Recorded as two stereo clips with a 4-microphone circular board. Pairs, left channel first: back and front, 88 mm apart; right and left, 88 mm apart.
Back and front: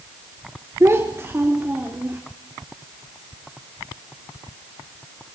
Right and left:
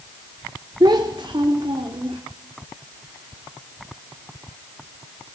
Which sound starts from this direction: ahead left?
A child speaking, at 0.8 s.